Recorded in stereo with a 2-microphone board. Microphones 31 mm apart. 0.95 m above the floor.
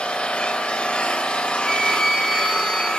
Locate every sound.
0.0 s an engine running: 45° left (ahead or behind), 3 m
1.6 s a flute: 5° right (ahead or behind), 2.5 m